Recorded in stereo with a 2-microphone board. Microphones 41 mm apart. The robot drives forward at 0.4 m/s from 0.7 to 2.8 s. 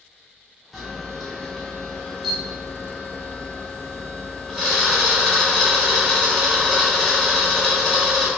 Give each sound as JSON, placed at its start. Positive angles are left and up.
{"t": 0.7, "sound": "a camera shutter", "side_deg": 0, "distance_m": 1.5}